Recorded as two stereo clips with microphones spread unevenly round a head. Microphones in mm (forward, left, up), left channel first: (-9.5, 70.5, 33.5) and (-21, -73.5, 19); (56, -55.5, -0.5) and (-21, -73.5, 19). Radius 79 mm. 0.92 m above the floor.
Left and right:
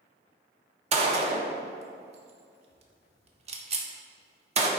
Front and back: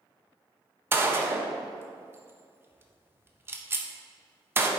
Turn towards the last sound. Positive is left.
turn(degrees=-100)